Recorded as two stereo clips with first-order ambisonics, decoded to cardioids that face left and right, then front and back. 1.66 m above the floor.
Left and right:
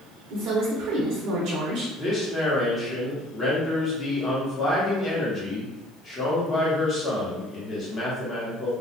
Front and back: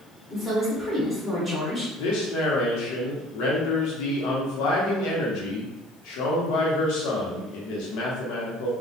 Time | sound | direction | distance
0.3 | a woman speaking | 80° right | 0.7 m
2.0 | a man speaking | 15° left | 0.8 m